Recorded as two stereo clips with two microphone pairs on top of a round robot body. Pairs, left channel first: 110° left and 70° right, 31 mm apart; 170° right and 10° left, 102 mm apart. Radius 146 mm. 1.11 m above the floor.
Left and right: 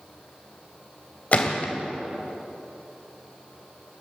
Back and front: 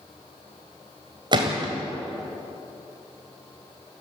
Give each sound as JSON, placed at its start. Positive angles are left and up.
{"t": 1.3, "sound": "a gunshot", "azimuth_deg": 60, "distance_m": 1.7}